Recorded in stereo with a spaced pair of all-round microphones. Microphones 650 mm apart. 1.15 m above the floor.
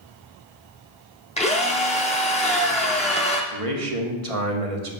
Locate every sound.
1.4 s a drill: 10° left (ahead or behind), 0.8 m
3.5 s a man speaking: 55° right (ahead or behind), 1.0 m